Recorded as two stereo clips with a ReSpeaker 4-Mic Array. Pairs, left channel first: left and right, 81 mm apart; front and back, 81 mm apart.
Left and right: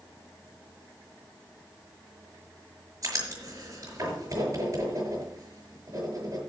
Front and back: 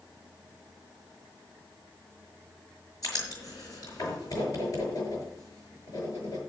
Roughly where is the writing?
Ahead right.